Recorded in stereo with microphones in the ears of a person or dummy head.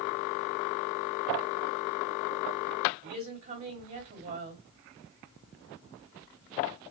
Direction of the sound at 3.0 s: 45° right (ahead or behind).